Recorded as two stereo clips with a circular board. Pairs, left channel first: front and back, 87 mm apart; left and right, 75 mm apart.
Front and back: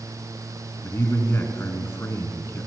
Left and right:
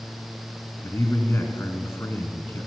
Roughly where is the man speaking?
Ahead left.